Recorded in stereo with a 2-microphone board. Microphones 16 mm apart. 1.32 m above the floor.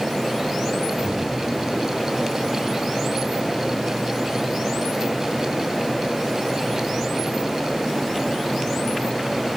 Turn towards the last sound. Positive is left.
turn(degrees=-25)  # may be behind; listen again after turning